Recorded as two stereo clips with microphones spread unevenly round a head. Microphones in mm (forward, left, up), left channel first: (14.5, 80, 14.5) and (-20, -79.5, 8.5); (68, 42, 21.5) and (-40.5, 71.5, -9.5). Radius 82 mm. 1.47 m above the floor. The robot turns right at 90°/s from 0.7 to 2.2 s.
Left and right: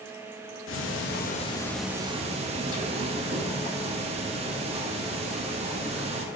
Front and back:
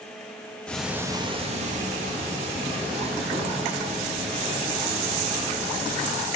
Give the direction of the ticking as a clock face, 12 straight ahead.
10 o'clock.